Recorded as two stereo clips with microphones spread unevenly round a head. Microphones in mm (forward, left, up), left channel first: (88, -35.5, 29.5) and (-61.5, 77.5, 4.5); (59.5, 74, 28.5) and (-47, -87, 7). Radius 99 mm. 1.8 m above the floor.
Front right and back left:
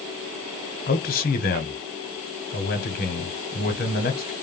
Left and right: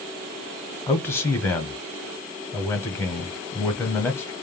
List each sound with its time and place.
0.9 s a man speaking: 15° right, 0.8 m